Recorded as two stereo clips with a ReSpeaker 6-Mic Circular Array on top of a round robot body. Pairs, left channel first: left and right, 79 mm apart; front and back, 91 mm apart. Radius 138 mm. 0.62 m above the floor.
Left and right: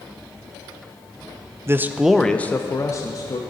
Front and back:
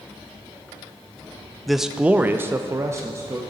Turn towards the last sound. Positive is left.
turn(degrees=125)